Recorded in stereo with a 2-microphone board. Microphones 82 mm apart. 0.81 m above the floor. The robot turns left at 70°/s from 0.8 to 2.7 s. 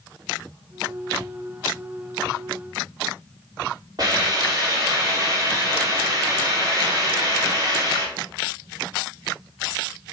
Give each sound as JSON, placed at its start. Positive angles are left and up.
{"t": 4.0, "sound": "a hiss", "side_deg": -55, "distance_m": 2.5}